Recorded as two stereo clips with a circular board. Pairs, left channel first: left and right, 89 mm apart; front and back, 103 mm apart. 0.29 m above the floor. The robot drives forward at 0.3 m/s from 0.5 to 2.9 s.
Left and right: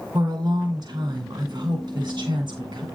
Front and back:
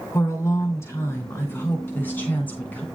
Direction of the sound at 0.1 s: 60° right.